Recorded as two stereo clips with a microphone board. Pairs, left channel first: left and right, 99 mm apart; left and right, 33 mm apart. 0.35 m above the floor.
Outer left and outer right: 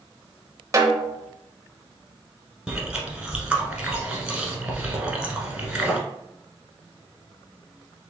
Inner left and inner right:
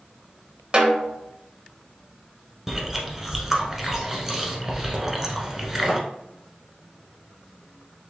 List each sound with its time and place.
0.7 s a snare drum: 35° right (ahead or behind), 0.6 m
2.7 s chewing: 10° right (ahead or behind), 1.1 m